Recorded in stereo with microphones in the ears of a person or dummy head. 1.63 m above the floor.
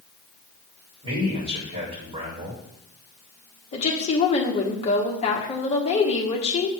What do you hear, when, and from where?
1.0 s a man speaking: 30° right (ahead or behind), 3.5 m
3.7 s a woman speaking: 30° left (ahead or behind), 1.3 m